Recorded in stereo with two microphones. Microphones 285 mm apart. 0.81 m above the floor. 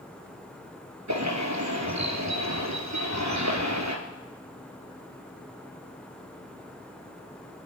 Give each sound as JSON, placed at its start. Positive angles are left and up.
{"t": 1.1, "sound": "a bird", "side_deg": -80, "distance_m": 3.0}